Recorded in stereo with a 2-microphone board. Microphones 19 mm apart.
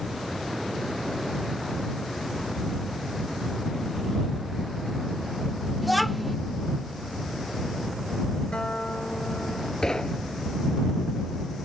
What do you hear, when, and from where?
5.8 s a child speaking: centre (ahead or behind)
8.5 s a guitar: 55° left (ahead or behind)
9.8 s knocking: 35° left (ahead or behind)